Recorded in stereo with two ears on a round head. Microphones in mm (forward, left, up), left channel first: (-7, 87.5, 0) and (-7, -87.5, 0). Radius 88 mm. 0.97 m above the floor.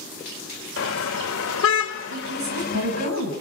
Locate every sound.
0.8 s a car horn: 70° left (ahead or behind), 2 m; by 3.1 s 40° left (ahead or behind), 2.5 m
2.1 s a woman speaking: 85° right, 8 m